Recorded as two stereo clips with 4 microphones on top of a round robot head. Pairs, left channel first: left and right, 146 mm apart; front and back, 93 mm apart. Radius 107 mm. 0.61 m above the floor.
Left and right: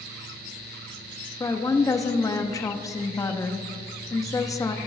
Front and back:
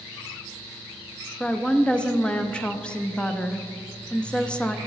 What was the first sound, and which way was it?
A woman speaking, 65° left.